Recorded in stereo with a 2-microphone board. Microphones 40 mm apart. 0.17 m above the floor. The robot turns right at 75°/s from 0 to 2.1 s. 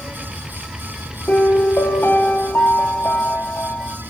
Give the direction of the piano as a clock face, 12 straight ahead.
10 o'clock.